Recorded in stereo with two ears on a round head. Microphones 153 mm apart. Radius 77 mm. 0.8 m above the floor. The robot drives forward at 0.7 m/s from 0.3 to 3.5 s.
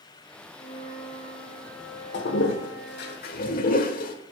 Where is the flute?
35° left (ahead or behind), 2.5 m; by 3.1 s 20° left (ahead or behind), 4 m.